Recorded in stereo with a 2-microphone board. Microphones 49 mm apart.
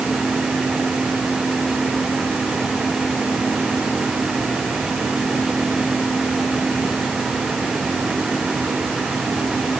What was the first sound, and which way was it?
Only background noise.